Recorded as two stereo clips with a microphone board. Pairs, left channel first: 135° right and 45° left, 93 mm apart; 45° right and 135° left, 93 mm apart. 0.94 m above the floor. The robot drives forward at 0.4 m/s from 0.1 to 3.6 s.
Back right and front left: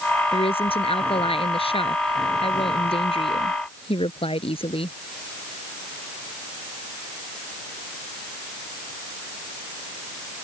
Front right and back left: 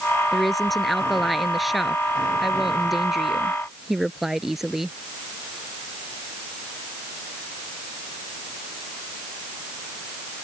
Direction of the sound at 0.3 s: 135° right.